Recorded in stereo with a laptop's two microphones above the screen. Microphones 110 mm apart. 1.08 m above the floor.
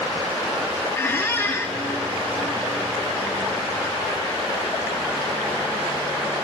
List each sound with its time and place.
0.9 s a squeak: 25° left (ahead or behind), 0.8 m